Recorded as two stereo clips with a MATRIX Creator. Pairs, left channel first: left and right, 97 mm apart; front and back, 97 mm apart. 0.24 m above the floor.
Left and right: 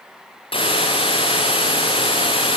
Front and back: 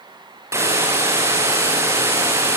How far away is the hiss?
About 5.5 m.